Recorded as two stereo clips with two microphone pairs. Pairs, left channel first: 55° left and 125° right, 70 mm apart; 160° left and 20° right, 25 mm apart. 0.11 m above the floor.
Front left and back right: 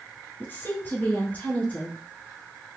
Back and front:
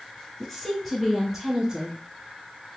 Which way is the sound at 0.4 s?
90° left.